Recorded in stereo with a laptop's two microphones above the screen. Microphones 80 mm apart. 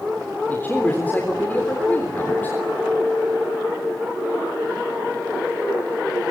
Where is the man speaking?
20° left (ahead or behind), 3.5 m.